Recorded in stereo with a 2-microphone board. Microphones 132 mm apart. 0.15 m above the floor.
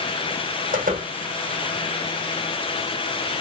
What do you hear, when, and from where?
0.7 s a door slam: 80° right, 6.5 m